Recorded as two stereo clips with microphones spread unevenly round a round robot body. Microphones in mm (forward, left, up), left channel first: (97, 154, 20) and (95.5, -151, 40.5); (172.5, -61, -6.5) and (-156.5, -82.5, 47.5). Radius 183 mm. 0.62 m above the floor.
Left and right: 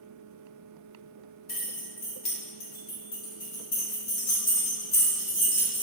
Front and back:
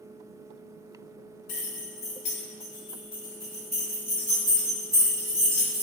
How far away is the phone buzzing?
I don't hear a phone buzzing.